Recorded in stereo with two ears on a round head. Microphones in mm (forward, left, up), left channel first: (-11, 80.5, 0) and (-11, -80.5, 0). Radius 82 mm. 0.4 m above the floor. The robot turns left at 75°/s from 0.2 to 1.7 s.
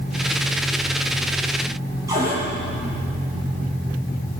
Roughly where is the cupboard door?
Centre.